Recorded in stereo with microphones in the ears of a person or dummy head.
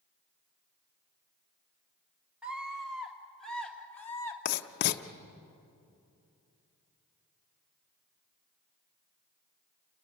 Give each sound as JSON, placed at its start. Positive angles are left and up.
{"t": 2.4, "sound": "a scream", "side_deg": -5, "distance_m": 3.5}
{"t": 4.5, "sound": "writing", "side_deg": 55, "distance_m": 0.9}